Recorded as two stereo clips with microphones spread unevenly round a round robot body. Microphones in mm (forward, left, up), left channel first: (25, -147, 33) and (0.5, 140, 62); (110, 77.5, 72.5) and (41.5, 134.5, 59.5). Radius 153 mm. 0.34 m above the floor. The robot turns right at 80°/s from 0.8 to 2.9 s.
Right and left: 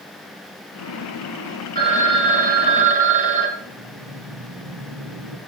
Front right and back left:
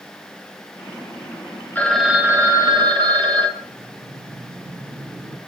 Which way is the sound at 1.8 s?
35° left.